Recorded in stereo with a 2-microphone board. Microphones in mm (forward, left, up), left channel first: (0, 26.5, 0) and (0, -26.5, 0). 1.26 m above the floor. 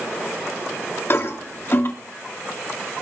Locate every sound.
1.1 s a toilet flushing: 45° left (ahead or behind), 3 m